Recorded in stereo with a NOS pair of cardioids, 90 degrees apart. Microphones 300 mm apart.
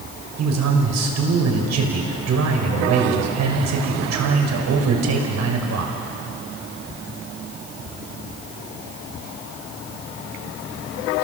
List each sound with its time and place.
0.4 s a man speaking: 60° right, 5.5 m